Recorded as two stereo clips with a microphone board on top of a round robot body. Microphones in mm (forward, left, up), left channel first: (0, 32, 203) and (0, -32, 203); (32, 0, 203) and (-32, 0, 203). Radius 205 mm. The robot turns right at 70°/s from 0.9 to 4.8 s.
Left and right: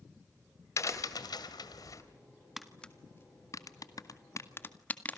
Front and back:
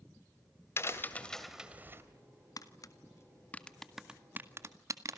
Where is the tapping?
5° right, 2 m; by 5.2 s 150° left, 2 m.